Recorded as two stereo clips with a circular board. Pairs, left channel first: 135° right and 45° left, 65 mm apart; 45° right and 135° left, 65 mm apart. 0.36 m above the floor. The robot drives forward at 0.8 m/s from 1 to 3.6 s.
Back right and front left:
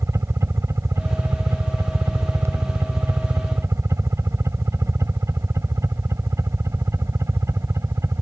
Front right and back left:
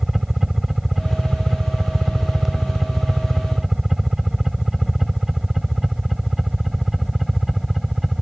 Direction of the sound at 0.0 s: 50° left.